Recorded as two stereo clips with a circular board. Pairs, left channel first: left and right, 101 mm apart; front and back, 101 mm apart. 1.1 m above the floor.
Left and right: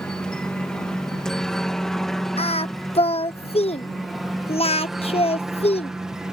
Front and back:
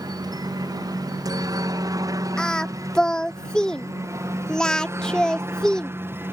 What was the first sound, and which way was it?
A helicopter, 170° left.